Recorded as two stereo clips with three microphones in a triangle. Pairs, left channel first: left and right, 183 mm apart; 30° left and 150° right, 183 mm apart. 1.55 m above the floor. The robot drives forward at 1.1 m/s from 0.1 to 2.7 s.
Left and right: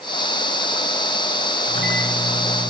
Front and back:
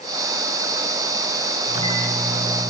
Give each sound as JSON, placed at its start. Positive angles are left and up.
{"t": 1.6, "sound": "a microwave", "azimuth_deg": -95, "distance_m": 5.5}